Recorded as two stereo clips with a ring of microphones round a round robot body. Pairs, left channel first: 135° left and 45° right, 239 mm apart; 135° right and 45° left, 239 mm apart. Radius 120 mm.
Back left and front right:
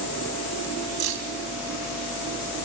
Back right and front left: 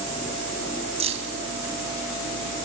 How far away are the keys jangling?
About 3 m.